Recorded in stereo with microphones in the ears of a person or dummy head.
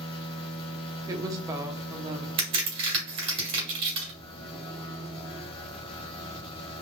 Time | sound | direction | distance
0.0 | a machine running | 25° left (ahead or behind) | 0.8 m
1.1 | a woman speaking | 20° right (ahead or behind) | 0.6 m
2.4 | a crack | 35° right (ahead or behind) | 1.5 m